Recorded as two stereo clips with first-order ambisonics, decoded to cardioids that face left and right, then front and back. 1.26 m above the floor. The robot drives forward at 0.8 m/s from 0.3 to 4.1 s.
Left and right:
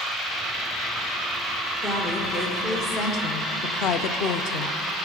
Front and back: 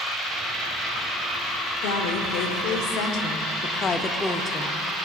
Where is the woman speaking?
15° left, 2 m; by 4.8 s 80° left, 0.6 m.